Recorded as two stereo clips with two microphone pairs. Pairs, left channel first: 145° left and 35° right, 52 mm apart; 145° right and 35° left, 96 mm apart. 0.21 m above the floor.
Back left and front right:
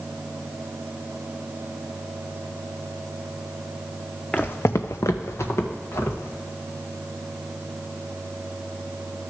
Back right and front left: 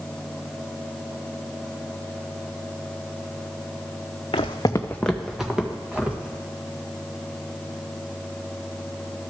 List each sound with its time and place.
4.3 s footsteps: 145° right, 0.7 m; by 6.4 s 110° left, 3 m